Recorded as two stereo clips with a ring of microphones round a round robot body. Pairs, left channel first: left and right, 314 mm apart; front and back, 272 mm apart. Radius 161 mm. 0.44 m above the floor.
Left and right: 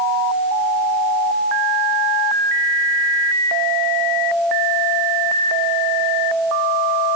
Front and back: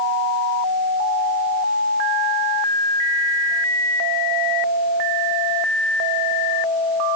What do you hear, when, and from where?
Only background noise.